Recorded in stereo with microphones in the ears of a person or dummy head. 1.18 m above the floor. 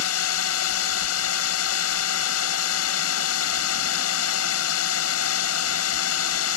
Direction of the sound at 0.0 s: 80° left.